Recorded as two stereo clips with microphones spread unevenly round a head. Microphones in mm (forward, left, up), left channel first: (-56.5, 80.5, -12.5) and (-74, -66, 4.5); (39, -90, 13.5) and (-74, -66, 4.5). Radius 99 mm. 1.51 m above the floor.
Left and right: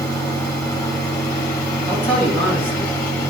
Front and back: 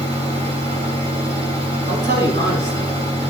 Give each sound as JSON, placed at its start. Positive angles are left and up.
{"t": 0.0, "sound": "a fan", "azimuth_deg": 150, "distance_m": 1.6}
{"t": 1.9, "sound": "a man speaking", "azimuth_deg": 135, "distance_m": 2.0}